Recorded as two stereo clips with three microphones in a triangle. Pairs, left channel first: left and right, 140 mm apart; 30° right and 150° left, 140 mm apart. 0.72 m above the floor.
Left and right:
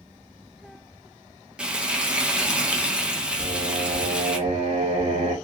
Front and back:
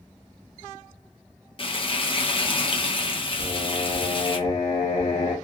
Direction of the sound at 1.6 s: 10° right.